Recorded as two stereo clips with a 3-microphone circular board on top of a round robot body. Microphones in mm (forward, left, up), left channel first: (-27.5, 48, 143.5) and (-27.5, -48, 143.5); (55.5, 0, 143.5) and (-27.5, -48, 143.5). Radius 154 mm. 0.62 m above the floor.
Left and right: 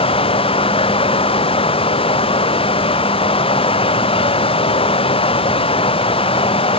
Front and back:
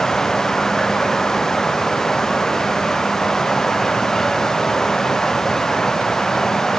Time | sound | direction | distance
0.0 | running water | 115° left | ?